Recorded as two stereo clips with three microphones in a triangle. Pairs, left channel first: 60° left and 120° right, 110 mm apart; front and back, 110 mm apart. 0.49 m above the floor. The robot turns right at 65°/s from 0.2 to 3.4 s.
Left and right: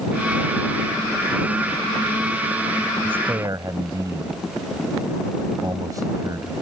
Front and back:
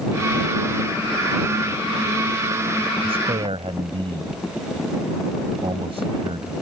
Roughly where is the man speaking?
Behind.